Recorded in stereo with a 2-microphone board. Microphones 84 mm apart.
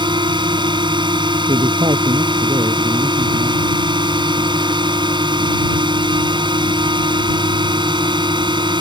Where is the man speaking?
75° right (ahead or behind).